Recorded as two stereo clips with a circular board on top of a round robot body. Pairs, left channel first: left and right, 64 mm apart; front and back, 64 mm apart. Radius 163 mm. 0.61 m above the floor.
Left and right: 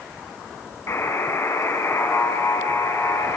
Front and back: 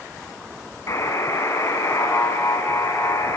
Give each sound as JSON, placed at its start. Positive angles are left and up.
{"t": 0.9, "sound": "a buzzer", "azimuth_deg": 40, "distance_m": 6.0}